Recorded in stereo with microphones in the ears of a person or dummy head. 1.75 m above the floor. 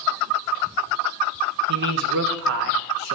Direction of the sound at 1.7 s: 70° right (ahead or behind).